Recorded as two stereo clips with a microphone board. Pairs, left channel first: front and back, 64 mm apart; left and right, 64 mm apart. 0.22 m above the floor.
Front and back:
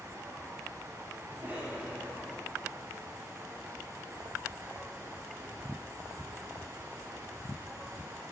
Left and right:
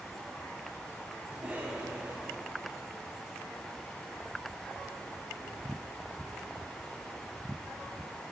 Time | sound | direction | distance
1.3 | a cough | 140° right | 1.2 m